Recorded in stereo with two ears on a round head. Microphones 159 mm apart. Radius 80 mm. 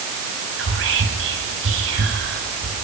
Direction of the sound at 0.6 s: 75° right (ahead or behind).